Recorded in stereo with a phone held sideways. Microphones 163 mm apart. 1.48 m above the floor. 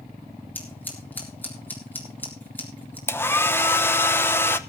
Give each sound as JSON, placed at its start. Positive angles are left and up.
{"t": 0.6, "sound": "scissors", "side_deg": 10, "distance_m": 3.5}
{"t": 3.1, "sound": "a hair dryer", "side_deg": 15, "distance_m": 0.8}